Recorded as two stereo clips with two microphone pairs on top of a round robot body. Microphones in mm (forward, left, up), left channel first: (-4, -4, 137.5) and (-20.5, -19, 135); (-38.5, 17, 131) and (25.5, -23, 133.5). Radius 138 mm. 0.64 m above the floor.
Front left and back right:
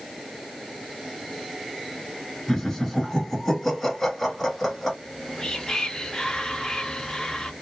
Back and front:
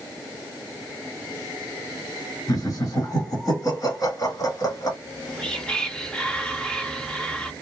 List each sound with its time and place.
2.5 s laughter: 115° left, 1.8 m
5.0 s whispering: 90° left, 1.0 m